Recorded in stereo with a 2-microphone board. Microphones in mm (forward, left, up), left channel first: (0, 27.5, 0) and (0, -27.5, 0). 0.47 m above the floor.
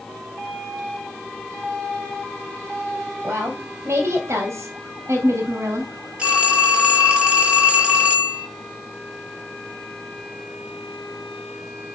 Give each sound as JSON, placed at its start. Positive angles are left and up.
{"t": 3.2, "sound": "a woman speaking", "side_deg": -55, "distance_m": 2.5}
{"t": 6.2, "sound": "a phone ringing", "side_deg": -20, "distance_m": 7.0}